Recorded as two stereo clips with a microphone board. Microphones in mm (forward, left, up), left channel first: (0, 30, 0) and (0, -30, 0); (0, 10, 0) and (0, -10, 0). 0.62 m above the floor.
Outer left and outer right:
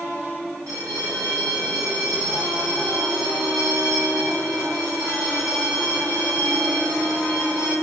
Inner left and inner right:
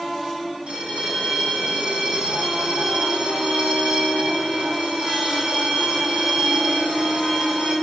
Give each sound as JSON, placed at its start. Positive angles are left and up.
{"t": 0.7, "sound": "a bell", "side_deg": -75, "distance_m": 1.1}